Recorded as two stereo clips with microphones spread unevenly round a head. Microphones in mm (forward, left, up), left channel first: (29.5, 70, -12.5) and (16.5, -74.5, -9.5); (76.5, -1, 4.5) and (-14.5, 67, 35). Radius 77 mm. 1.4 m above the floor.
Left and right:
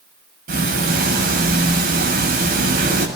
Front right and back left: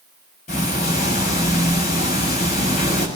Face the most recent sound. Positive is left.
turn(degrees=-75)